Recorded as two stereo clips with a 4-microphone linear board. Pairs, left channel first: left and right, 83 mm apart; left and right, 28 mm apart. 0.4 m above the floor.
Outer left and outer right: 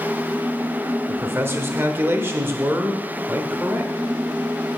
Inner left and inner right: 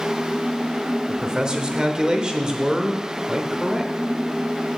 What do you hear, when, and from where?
1.1 s a man speaking: 25° right (ahead or behind), 0.9 m